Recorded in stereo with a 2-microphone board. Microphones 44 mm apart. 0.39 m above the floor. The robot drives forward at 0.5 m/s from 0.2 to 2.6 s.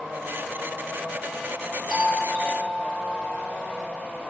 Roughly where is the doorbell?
Left.